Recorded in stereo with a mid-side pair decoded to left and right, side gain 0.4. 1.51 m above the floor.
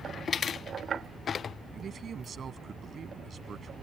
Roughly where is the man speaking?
Ahead right.